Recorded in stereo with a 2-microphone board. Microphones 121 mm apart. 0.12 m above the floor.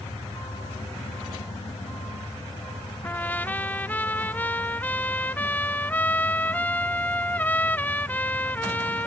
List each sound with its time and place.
3.0 s a trumpet: 15° left (ahead or behind)